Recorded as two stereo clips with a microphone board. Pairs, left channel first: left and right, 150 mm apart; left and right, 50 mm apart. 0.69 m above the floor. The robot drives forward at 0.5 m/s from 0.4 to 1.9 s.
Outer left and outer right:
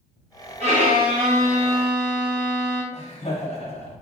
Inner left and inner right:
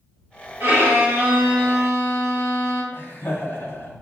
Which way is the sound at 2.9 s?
45° left (ahead or behind).